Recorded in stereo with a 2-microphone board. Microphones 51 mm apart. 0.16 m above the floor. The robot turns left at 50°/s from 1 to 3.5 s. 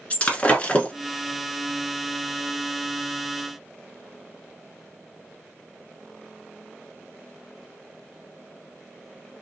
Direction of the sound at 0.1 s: 25° left (ahead or behind).